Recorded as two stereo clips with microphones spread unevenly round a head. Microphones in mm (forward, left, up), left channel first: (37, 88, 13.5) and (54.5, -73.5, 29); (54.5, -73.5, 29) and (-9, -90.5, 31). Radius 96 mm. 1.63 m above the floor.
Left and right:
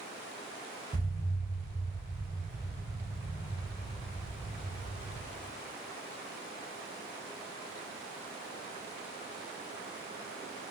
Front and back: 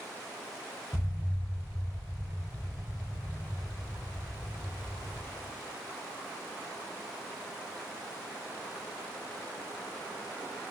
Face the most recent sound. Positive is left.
turn(degrees=-50)